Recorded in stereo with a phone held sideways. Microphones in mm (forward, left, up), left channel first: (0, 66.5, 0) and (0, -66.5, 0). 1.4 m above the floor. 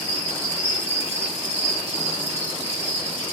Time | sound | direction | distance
0.0 | an insect | 50° right (ahead or behind) | 0.8 m